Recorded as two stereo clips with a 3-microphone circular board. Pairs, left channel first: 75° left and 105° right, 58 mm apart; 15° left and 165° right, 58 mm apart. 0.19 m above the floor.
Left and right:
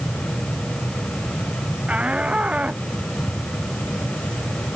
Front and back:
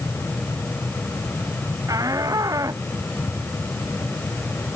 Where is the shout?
175° right.